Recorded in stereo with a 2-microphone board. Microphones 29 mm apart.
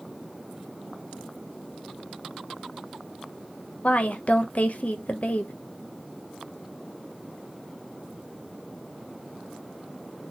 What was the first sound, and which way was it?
A woman speaking, 55° left (ahead or behind).